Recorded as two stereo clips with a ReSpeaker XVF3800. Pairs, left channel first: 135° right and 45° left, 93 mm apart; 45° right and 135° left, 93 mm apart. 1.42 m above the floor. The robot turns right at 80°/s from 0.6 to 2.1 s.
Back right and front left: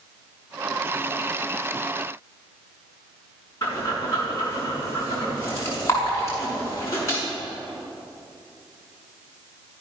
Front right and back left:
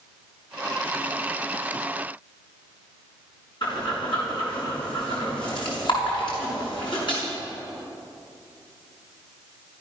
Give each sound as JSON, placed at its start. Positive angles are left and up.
{"t": 3.6, "sound": "breathing", "azimuth_deg": -75, "distance_m": 6.5}